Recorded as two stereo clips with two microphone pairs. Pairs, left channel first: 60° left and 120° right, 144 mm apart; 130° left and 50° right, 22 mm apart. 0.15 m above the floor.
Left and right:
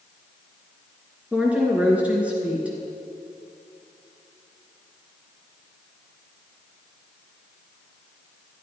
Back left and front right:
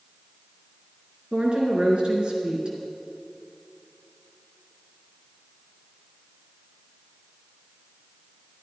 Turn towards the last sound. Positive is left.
turn(degrees=-40)